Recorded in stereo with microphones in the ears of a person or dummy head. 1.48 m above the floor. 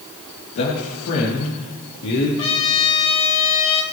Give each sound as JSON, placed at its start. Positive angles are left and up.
{"t": 0.6, "sound": "a man speaking", "side_deg": 65, "distance_m": 3.0}
{"t": 2.4, "sound": "a trumpet", "side_deg": 30, "distance_m": 3.0}